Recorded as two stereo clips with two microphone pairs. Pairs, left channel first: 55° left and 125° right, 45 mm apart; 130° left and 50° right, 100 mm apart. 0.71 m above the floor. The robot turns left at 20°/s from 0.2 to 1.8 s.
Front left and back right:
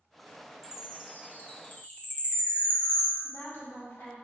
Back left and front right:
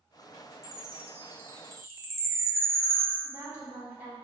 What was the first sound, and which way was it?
A chime, 35° left.